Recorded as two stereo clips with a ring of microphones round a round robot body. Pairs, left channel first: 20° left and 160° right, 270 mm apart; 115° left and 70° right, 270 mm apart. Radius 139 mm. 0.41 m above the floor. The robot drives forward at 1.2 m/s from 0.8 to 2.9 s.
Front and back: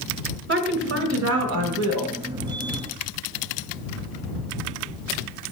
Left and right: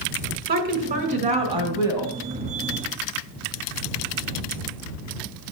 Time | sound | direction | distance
0.5 | a woman speaking | 120° right | 2.5 m